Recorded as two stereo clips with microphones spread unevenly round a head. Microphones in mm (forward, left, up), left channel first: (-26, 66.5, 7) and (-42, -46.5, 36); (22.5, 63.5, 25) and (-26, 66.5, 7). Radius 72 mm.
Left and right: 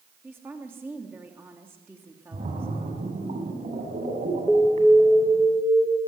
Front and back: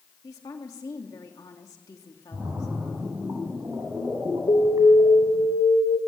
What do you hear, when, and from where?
0.2 s a woman speaking: 20° right, 3 m
2.3 s a splash: 125° right, 8 m
4.5 s an alarm: 5° right, 2.5 m